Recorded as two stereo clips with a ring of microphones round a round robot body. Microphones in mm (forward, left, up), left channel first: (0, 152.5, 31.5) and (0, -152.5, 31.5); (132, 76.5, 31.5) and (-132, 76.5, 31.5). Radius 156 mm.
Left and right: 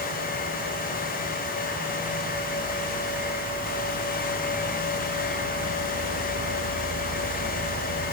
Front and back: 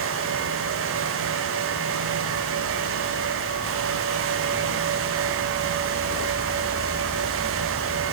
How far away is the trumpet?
No trumpet in this recording.